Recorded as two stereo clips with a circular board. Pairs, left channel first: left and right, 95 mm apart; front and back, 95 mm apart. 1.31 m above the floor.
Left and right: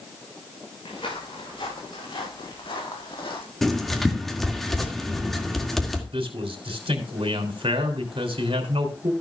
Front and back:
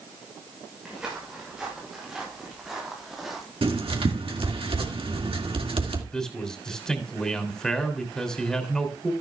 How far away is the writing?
About 2.0 m.